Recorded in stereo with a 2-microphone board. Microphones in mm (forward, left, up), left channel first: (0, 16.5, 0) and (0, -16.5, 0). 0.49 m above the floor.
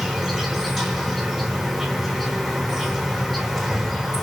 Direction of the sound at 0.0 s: Centre (ahead or behind).